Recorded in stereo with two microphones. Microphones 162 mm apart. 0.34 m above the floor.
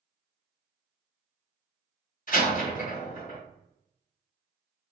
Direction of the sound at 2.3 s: 50° left (ahead or behind).